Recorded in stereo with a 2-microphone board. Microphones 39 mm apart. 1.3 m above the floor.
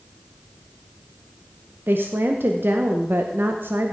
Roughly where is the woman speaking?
Right.